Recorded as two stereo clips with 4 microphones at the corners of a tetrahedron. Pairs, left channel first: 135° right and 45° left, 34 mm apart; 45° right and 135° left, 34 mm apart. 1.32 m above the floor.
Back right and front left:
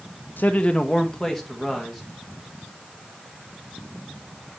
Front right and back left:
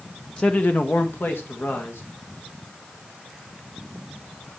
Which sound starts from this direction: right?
A man speaking, at 0.4 s.